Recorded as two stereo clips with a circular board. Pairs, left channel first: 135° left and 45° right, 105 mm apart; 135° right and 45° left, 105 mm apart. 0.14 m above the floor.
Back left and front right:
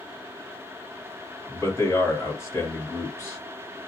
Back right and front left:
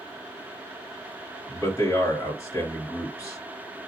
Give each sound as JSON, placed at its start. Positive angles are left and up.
{"t": 1.5, "sound": "a man speaking", "azimuth_deg": -175, "distance_m": 2.0}